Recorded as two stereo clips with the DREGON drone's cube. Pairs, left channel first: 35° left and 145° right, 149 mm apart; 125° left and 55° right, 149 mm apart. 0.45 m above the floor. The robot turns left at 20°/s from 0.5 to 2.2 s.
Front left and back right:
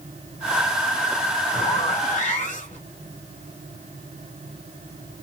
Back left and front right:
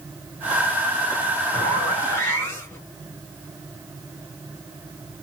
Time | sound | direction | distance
1.5 | a zipper | 65° left | 2.0 m